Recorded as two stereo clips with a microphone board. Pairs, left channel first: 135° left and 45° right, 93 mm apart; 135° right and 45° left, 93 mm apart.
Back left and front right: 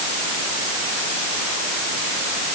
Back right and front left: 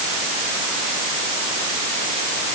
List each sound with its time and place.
Only background noise.